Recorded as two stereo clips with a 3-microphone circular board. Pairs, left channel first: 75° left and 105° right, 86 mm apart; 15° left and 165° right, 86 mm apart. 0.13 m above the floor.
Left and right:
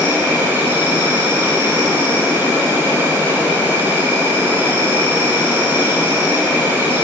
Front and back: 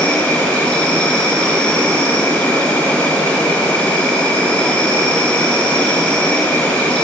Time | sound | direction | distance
0.0 | an insect | 55° right | 1.7 m